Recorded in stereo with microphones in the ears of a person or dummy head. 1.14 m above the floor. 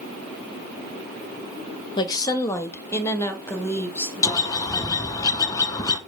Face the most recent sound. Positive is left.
turn(degrees=15)  # may be behind; listen again after turning